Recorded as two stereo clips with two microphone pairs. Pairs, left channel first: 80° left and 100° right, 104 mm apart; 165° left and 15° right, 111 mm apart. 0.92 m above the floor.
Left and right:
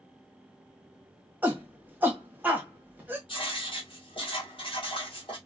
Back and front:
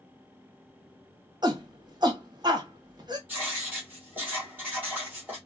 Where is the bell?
I don't hear a bell.